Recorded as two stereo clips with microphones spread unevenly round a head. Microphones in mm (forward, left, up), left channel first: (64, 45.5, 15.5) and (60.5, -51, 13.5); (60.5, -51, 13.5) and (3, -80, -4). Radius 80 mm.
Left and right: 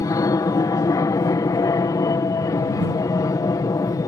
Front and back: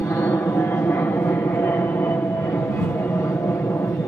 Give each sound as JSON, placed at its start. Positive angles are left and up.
{"t": 0.0, "sound": "an aircraft", "azimuth_deg": 80}